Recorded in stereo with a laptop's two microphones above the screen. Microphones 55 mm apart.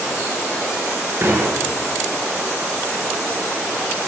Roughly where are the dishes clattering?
Right.